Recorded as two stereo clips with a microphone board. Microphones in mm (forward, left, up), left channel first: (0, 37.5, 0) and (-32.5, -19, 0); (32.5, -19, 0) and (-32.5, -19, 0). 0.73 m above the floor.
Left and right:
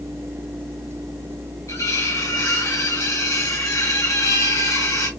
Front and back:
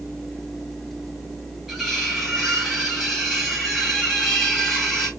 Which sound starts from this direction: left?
Cutlery clinking, at 1.7 s.